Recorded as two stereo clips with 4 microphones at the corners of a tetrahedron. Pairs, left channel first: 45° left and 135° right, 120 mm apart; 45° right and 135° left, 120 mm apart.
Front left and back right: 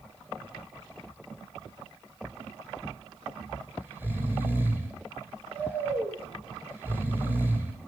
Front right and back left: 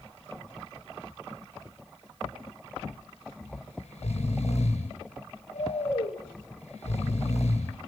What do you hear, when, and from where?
3.4 s snoring: 60° right, 3.5 m